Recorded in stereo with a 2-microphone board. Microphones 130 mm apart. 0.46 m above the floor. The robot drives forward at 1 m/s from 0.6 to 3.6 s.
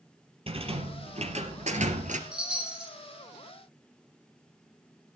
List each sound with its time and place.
0.5 s a rattle: 45° right (ahead or behind), 3.5 m; by 2.2 s 75° right (ahead or behind), 2.5 m
2.3 s a chime: 5° right (ahead or behind), 7 m